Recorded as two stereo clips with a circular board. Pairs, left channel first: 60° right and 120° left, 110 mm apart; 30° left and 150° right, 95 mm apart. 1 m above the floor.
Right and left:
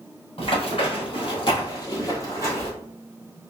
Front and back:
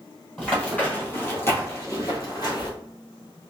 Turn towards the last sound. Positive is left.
turn(degrees=5)